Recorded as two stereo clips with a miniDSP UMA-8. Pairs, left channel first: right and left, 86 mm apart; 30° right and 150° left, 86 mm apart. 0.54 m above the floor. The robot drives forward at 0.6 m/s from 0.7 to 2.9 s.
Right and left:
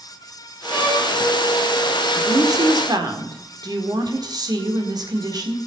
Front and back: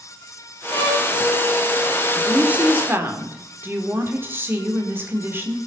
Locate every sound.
0.7 s a violin: 15° left, 8.5 m
2.1 s a woman speaking: 75° left, 1.7 m; by 5.6 s 95° left, 1.7 m